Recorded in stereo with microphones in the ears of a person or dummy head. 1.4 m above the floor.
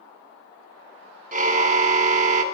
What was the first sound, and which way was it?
A car horn, 45° right (ahead or behind).